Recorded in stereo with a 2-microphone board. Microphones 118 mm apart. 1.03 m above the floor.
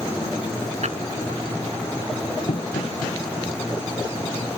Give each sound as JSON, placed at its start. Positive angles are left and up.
{"t": 0.8, "sound": "a drawer", "side_deg": -70}
{"t": 2.5, "sound": "knocking", "side_deg": 80}